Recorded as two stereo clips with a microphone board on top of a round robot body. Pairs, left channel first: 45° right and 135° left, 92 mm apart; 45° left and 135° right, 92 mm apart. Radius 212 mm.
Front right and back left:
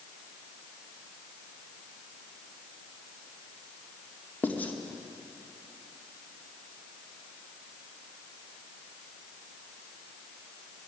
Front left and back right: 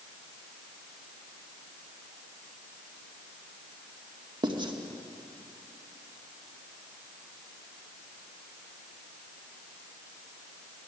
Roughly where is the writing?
Behind right.